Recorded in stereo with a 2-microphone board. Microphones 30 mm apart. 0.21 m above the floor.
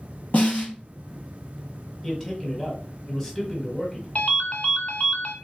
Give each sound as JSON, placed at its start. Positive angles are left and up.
{"t": 0.3, "sound": "a snare drum", "side_deg": 65, "distance_m": 2.5}
{"t": 2.0, "sound": "a man speaking", "side_deg": 15, "distance_m": 1.1}
{"t": 4.2, "sound": "a ringtone", "side_deg": 55, "distance_m": 0.7}